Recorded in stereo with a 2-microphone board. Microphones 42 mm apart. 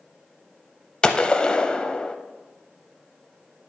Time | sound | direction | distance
1.0 | a gunshot | 20° left (ahead or behind) | 0.5 m